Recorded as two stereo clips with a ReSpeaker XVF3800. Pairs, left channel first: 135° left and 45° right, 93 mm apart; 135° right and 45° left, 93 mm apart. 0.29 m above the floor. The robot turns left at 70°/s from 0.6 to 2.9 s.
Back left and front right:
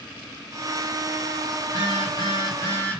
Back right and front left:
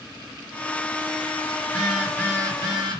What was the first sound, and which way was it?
A phone buzzing, 150° left.